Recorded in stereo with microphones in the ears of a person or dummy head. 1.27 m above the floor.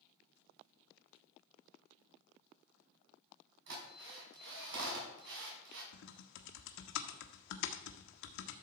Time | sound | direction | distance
3.7 | a drill | 65° right (ahead or behind) | 5 m
5.9 | typing on a keyboard | 70° left (ahead or behind) | 1.2 m